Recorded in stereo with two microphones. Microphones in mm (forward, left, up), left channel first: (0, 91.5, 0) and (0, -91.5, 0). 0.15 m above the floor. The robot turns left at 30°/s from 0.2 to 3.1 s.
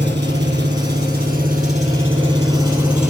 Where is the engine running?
90° right, 2 m; by 3.1 s straight behind, 2 m.